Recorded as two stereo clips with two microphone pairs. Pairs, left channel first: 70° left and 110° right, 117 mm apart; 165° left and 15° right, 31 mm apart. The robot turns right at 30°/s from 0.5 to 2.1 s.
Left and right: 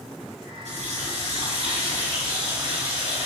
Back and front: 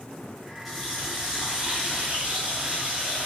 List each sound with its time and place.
0.7 s a running tap: 110° right, 3 m; by 3.3 s 70° right, 3 m